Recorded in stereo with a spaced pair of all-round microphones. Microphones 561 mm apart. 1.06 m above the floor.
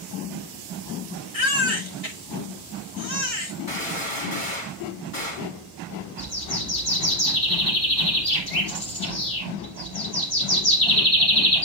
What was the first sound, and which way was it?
A baby crying, 80° left.